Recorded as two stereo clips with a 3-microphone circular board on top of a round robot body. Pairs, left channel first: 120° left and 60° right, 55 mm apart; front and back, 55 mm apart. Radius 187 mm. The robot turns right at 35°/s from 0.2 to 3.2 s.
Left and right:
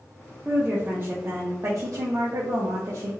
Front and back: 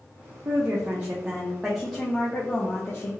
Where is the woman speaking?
140° right, 0.5 m; by 3.1 s 45° right, 0.5 m.